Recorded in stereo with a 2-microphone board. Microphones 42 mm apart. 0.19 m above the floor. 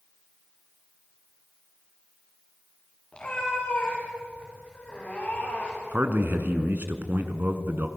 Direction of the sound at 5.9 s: 55° right (ahead or behind).